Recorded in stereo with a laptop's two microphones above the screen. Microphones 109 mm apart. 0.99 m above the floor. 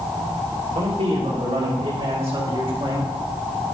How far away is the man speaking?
About 3 m.